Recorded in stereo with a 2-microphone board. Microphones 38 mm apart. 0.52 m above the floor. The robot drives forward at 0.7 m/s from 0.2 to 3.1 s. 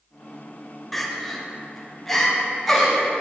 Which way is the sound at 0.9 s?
5° left (ahead or behind).